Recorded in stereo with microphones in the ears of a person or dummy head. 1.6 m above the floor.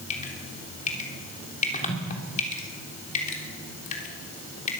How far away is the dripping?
About 3 m.